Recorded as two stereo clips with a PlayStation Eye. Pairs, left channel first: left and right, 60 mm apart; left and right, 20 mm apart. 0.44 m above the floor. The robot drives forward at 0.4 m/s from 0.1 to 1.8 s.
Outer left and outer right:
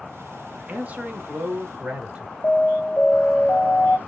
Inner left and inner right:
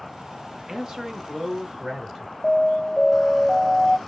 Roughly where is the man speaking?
Right.